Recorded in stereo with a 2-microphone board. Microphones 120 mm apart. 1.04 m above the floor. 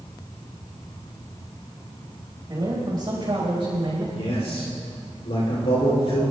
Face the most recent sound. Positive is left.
turn(degrees=60)  # may be behind; listen again after turning